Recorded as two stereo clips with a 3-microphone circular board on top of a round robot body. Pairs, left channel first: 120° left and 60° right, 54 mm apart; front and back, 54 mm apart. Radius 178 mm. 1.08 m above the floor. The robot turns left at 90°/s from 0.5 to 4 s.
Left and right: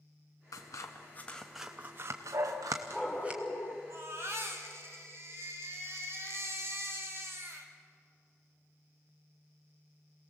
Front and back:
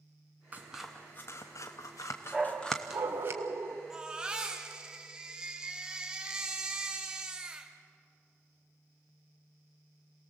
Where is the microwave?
I don't hear a microwave.